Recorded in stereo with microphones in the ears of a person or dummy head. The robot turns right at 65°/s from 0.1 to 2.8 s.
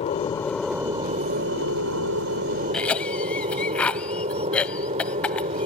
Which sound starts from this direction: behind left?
An aircraft, at 0.0 s.